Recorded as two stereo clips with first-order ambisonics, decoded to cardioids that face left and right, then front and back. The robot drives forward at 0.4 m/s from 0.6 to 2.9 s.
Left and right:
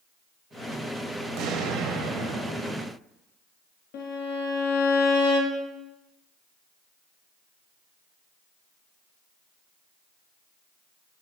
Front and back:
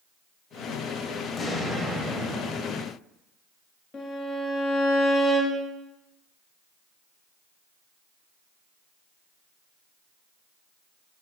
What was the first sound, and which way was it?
An explosion, 65° right.